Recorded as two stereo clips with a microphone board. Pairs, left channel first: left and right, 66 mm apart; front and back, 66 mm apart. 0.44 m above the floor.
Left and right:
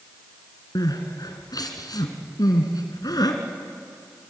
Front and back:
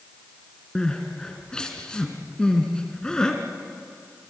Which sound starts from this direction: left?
Crying, at 0.8 s.